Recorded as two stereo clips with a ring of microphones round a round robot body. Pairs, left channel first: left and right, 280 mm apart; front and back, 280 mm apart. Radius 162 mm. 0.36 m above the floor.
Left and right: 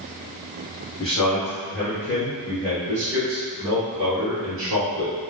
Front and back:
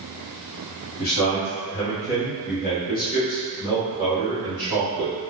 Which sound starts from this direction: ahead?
A man speaking, at 1.0 s.